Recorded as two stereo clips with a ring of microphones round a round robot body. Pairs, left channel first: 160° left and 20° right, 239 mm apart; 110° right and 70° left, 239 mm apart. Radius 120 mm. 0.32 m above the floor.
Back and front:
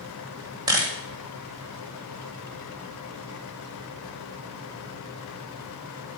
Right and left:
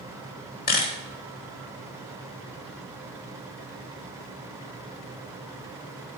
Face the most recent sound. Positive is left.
turn(degrees=-85)